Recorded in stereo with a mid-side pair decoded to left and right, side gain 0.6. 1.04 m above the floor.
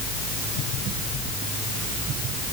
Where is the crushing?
No crushing in this recording.